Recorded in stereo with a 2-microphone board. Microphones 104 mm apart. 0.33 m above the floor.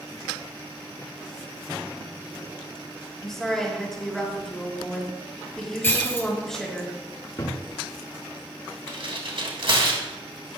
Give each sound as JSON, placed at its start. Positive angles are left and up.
{"t": 3.2, "sound": "a woman speaking", "side_deg": 5, "distance_m": 5.0}
{"t": 5.8, "sound": "breaking glass", "side_deg": 25, "distance_m": 2.0}
{"t": 7.4, "sound": "a cupboard door", "side_deg": 35, "distance_m": 1.5}
{"t": 8.9, "sound": "tearing paper", "side_deg": -65, "distance_m": 2.5}